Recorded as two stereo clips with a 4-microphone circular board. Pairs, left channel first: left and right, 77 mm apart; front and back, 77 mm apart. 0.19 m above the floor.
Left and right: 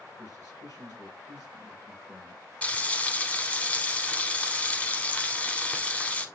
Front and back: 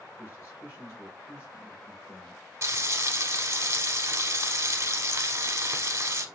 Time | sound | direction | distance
0.2 | a man speaking | 55° left | 3.5 m
2.6 | frying | 150° left | 0.8 m